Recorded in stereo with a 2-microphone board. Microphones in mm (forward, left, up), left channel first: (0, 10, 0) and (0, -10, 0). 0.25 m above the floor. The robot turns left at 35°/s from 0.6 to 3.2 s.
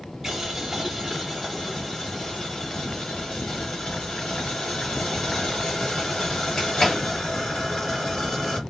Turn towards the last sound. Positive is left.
turn(degrees=115)